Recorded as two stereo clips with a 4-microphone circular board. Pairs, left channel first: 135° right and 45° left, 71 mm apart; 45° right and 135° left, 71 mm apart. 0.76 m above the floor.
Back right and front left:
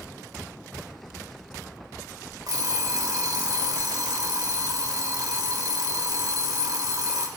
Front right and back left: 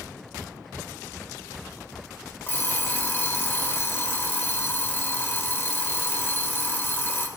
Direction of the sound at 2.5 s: 15° left.